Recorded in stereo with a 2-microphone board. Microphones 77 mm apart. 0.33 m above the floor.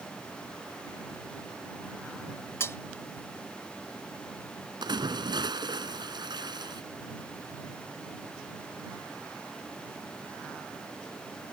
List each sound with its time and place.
2.6 s cutlery clinking: 35° left (ahead or behind)
4.8 s a splash: 75° right (ahead or behind)